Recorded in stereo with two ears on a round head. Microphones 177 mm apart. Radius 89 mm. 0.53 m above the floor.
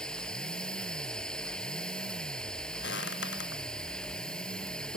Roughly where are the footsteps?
Left.